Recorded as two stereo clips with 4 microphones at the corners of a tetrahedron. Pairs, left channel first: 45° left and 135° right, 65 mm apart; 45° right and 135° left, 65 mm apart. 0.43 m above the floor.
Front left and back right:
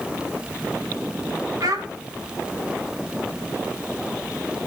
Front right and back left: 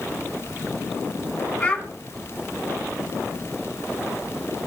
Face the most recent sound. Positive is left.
turn(degrees=-115)